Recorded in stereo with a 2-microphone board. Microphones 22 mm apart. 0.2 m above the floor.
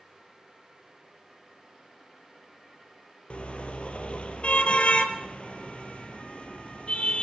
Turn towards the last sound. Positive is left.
turn(degrees=55)  # may be behind; listen again after turning